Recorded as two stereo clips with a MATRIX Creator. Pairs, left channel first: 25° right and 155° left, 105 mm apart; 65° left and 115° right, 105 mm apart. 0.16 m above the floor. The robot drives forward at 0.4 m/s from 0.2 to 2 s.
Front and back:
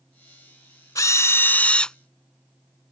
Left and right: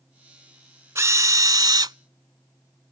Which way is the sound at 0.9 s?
65° right.